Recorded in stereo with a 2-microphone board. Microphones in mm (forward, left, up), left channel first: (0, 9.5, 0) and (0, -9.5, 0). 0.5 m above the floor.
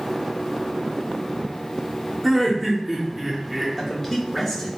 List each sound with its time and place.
2.2 s laughter: 10° right (ahead or behind), 0.7 m
3.8 s a man speaking: 20° left (ahead or behind), 1.0 m